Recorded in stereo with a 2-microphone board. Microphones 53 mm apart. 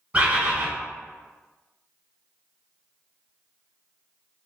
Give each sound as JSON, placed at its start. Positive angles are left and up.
{"t": 0.1, "sound": "a bird", "side_deg": -25, "distance_m": 1.1}